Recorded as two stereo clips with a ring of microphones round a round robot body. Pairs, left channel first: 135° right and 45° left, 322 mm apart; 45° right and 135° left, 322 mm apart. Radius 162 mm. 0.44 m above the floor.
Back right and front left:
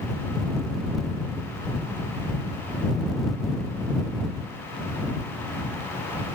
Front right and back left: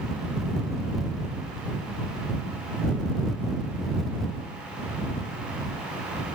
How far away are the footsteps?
No footsteps in this recording.